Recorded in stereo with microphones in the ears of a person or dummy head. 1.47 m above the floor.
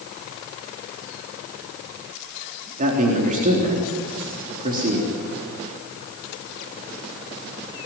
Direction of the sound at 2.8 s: 45° right (ahead or behind).